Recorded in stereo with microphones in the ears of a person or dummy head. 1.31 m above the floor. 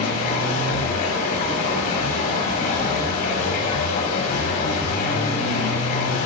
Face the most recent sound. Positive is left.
turn(degrees=55)  # may be behind; listen again after turning